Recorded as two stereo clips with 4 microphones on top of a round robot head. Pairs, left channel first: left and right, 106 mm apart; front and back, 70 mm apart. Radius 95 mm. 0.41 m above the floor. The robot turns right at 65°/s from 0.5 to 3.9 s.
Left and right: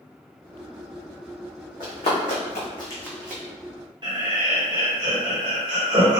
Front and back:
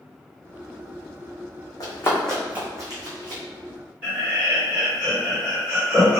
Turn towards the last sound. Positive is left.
turn(degrees=-120)